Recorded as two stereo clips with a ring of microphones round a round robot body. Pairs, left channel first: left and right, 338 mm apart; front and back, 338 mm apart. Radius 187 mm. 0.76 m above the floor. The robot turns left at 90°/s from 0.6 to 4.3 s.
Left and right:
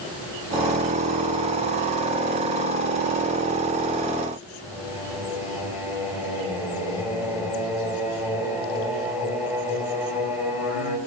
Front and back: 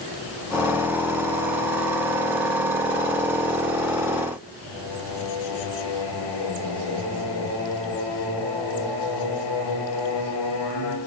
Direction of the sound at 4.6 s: 5° right.